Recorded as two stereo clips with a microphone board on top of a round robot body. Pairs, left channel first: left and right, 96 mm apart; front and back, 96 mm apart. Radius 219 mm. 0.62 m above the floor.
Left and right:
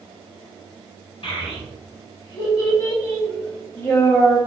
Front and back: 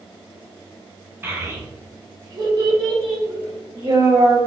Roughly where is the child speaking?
Behind left.